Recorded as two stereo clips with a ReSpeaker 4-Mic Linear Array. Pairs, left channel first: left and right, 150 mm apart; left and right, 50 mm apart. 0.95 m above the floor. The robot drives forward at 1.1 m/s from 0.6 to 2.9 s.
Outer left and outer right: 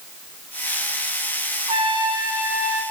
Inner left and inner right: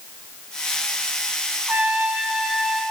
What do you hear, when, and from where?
1.7 s a trumpet: 40° right (ahead or behind), 0.6 m; by 2.8 s 15° right (ahead or behind), 1.5 m